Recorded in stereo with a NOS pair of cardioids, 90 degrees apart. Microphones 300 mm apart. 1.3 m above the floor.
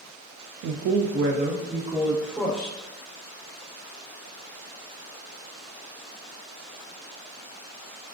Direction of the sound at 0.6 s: 70° right.